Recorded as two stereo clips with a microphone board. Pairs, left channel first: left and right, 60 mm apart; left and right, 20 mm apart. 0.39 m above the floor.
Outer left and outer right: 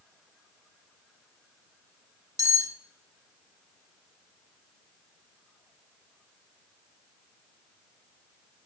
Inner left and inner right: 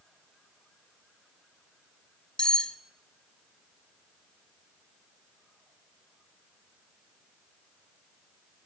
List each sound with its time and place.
2.4 s cutlery clinking: 55° left (ahead or behind), 0.8 m